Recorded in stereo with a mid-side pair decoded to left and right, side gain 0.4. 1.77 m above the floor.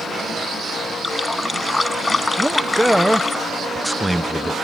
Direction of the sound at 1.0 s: 20° left.